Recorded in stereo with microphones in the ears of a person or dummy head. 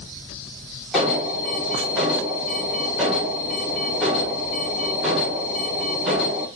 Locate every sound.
0.9 s an alarm: centre (ahead or behind), 1.2 m